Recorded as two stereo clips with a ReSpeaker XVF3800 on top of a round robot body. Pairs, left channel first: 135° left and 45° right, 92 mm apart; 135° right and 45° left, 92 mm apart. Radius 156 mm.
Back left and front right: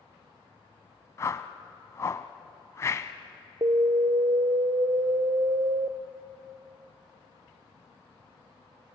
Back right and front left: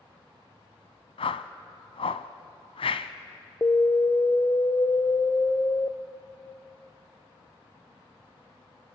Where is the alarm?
70° right, 0.7 m.